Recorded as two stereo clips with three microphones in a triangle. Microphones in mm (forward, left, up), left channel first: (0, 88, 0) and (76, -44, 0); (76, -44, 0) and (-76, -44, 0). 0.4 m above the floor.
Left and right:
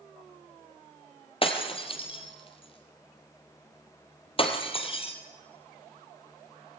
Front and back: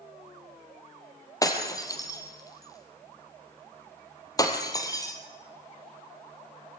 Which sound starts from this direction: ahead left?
Breaking glass, at 1.4 s.